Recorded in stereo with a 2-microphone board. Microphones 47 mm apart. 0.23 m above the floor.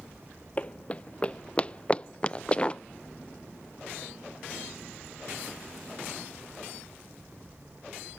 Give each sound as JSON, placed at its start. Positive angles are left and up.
{"t": 0.6, "sound": "running footsteps", "side_deg": 30}